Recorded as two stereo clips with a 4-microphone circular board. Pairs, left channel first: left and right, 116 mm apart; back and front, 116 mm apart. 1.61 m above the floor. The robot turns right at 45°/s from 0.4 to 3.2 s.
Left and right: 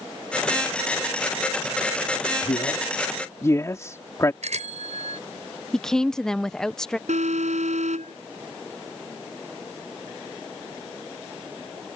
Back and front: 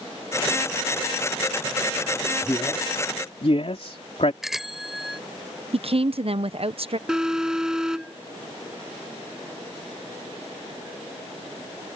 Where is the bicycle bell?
90° right.